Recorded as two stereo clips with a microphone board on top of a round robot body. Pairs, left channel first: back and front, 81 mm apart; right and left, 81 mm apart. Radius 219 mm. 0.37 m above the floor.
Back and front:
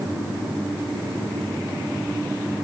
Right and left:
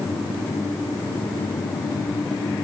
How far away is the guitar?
No guitar in this recording.